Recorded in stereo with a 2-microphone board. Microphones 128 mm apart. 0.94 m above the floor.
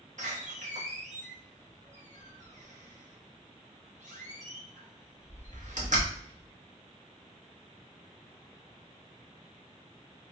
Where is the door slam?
70° right (ahead or behind), 1.0 m.